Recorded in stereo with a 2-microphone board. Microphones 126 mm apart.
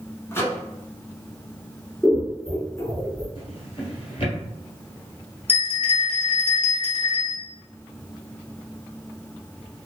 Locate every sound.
0.3 s a microwave: 20° left (ahead or behind), 0.9 m
2.0 s scissors: 5° left (ahead or behind), 1.4 m
3.4 s a drawer: 55° left (ahead or behind), 1.3 m
5.5 s a bell: 60° left (ahead or behind), 1.0 m